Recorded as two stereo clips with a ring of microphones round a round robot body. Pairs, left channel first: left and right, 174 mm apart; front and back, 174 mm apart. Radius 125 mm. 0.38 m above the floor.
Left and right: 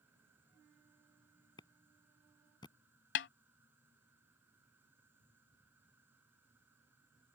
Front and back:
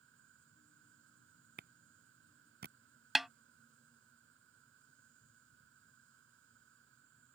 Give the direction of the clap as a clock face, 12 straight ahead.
7 o'clock.